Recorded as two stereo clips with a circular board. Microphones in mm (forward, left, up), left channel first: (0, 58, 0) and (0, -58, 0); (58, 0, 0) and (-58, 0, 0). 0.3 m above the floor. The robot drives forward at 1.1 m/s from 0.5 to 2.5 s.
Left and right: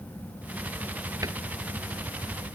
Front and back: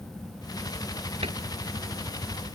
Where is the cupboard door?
150° right; by 1.4 s 155° right.